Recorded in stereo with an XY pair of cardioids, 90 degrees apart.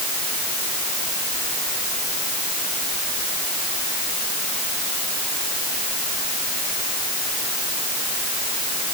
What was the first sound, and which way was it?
Only background noise.